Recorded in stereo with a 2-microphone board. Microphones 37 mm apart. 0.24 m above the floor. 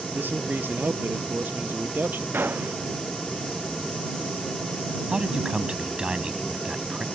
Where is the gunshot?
80° right.